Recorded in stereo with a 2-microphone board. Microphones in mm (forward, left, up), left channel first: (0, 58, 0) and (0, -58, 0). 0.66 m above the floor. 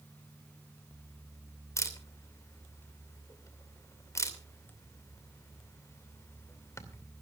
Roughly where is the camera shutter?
Left.